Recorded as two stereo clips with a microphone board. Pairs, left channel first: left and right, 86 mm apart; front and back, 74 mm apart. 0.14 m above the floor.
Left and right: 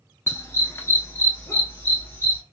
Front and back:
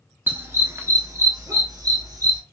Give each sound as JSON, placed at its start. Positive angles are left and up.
{"t": 0.3, "sound": "a dog barking", "azimuth_deg": 135, "distance_m": 0.7}